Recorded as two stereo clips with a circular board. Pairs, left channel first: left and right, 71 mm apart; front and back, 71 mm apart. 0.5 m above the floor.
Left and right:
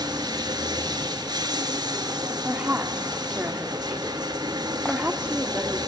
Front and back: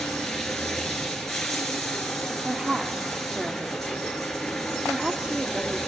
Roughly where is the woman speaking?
Behind right.